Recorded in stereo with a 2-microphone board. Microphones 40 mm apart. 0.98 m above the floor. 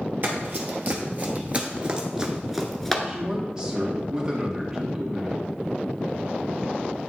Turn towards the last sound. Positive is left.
turn(degrees=-20)  # may be behind; listen again after turning